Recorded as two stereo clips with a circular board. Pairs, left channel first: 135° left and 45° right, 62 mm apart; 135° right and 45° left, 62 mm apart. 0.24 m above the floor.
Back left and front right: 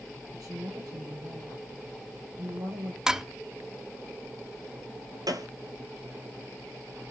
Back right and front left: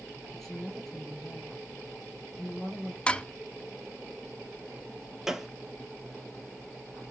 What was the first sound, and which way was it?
A woman speaking, 55° right.